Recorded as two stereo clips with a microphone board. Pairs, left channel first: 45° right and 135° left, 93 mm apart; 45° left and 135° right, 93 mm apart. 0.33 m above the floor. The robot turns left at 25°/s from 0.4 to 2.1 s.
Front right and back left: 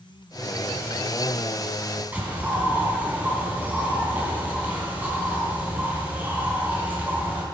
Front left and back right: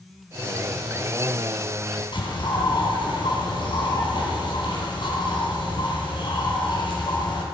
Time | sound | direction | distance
2.1 | a bird | 65° left | 3 m